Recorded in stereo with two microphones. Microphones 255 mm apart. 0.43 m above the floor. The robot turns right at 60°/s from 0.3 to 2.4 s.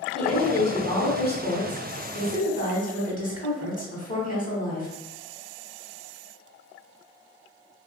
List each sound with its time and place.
0.1 s a woman speaking: straight ahead, 1.0 m; by 4.9 s 130° left, 1.0 m